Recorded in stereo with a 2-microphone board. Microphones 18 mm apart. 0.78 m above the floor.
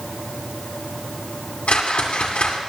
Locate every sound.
1.7 s a whoosh: 85° left, 2.5 m